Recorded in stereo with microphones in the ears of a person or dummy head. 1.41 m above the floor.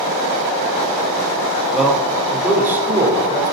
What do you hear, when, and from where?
1.7 s a man speaking: 5° right (ahead or behind), 5 m; by 3.5 s 20° right (ahead or behind), 4.5 m